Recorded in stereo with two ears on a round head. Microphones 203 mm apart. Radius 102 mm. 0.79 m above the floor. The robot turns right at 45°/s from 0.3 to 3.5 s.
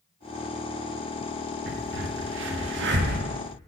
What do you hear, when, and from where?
1.7 s a crack: 45° right (ahead or behind), 1.0 m; by 3.2 s 40° right (ahead or behind), 1.0 m